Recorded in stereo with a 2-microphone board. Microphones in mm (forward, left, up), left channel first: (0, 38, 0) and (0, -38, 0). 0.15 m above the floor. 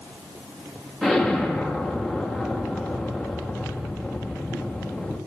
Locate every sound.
1.0 s an explosion: 5° right (ahead or behind), 5.5 m